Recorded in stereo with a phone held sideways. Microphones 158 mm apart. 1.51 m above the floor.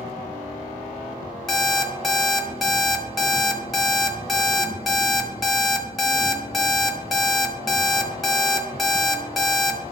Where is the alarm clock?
Centre (ahead or behind), 1.2 m.